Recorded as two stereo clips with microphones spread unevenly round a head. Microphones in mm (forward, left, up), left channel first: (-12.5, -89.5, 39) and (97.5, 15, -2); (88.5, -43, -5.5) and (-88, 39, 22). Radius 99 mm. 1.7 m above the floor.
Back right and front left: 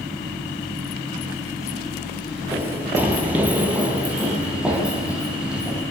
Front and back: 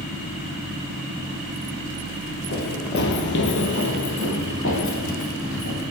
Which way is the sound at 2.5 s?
45° right.